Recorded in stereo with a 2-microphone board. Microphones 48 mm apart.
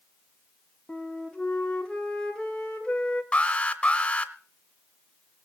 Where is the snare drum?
I don't hear a snare drum.